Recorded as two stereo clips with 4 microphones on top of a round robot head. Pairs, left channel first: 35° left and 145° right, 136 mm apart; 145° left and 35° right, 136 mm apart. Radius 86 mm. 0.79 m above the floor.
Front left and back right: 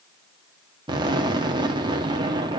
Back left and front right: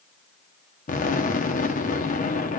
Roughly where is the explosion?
Behind.